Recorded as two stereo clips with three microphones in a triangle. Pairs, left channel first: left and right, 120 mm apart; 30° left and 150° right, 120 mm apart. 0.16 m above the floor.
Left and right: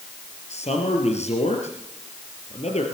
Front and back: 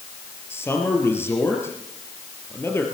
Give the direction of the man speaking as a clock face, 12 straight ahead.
9 o'clock.